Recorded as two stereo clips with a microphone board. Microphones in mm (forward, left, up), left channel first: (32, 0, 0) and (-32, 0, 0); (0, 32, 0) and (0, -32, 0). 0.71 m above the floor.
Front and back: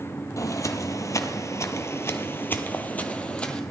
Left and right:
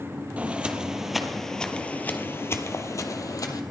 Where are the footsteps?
25° right, 1.2 m; by 3.6 s 75° left, 1.4 m.